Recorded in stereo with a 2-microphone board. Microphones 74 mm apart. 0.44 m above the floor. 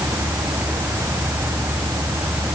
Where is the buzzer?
No buzzer in this recording.